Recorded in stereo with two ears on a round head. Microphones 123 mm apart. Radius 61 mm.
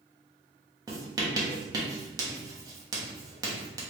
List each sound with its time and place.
0.9 s writing: 25° right (ahead or behind), 0.9 m